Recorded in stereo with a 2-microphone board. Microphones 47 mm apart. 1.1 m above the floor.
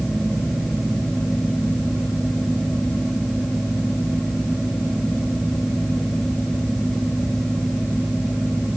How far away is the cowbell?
No cowbell in this recording.